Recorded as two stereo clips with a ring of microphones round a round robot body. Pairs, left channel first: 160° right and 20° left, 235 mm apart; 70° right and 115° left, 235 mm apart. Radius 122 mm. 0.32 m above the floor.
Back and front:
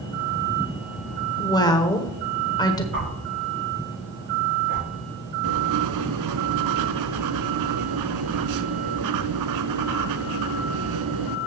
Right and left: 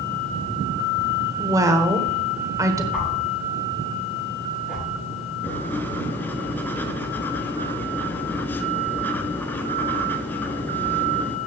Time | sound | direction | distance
1.4 | a woman speaking | 165° left | 1.2 m
2.9 | a whoosh | 25° left | 5.5 m
5.4 | writing | 15° left | 0.7 m